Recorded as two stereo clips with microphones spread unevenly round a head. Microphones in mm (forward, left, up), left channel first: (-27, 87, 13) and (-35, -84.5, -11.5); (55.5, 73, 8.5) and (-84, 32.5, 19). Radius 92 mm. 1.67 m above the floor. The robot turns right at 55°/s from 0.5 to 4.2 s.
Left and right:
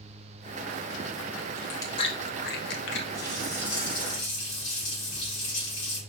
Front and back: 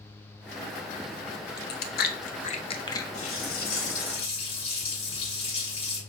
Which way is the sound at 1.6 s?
5° left.